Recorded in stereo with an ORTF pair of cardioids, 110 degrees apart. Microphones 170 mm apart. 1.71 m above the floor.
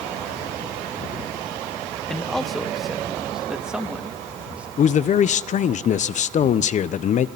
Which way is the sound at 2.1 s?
5° left.